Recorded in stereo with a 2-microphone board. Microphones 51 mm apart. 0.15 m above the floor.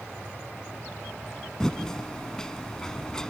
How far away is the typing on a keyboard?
About 0.7 m.